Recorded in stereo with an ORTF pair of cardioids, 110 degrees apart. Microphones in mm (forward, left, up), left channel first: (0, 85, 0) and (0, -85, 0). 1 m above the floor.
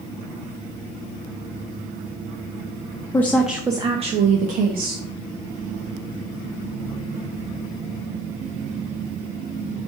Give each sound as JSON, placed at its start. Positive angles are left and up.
{"t": 3.1, "sound": "a woman speaking", "azimuth_deg": 15, "distance_m": 0.7}